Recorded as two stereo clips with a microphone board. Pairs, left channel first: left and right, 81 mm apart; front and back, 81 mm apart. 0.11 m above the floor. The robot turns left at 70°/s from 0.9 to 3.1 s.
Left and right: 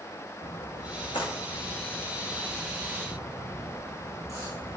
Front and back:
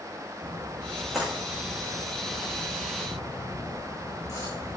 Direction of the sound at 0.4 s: 110° left.